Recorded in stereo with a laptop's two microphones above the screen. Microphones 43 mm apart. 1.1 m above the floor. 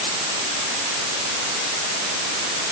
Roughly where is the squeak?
No squeak in this recording.